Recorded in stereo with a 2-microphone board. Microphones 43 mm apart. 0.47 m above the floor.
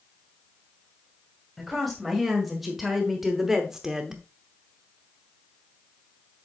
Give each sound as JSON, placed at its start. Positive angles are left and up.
{"t": 1.6, "sound": "a woman speaking", "side_deg": 0, "distance_m": 2.0}